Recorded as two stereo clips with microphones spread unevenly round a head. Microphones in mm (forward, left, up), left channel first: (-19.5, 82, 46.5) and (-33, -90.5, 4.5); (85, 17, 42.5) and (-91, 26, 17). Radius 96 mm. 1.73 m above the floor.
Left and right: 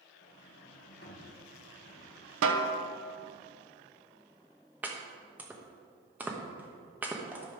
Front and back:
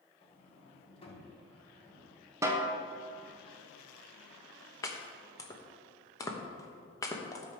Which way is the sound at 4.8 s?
5° left.